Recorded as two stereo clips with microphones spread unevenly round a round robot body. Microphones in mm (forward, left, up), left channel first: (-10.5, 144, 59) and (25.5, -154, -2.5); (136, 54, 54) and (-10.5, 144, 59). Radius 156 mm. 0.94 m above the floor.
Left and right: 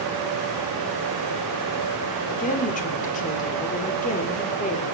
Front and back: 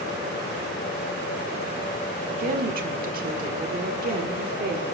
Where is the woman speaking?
165° left, 1.3 m.